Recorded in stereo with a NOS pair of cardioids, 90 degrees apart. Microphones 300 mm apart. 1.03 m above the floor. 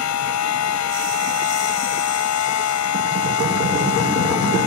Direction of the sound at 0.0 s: 65° left.